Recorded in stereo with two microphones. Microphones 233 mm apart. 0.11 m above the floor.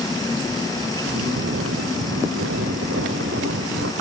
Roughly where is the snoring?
Right.